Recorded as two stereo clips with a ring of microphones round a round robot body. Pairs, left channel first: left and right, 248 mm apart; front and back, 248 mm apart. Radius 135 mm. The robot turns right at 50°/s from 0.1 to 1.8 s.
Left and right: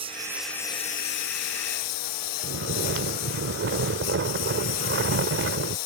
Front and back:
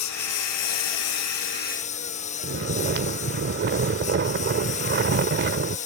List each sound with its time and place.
0.0 s a lawn mower: 15° right; by 5.9 s 65° left
2.4 s snoring: 130° right